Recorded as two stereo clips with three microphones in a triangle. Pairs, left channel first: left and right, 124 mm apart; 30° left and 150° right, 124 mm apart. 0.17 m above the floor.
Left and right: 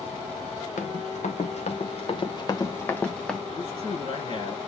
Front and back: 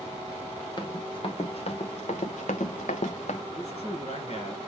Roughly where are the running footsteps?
Left.